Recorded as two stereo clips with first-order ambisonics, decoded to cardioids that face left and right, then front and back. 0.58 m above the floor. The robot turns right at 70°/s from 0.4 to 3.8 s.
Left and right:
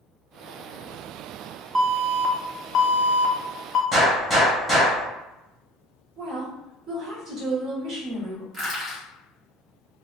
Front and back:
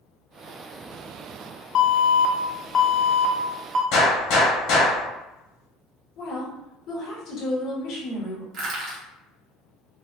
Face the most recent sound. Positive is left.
turn(degrees=-160)